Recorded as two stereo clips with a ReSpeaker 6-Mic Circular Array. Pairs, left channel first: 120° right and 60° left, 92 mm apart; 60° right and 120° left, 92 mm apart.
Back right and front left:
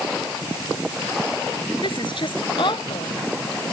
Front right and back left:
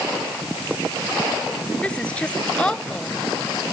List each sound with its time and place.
1.8 s a woman speaking: 135° right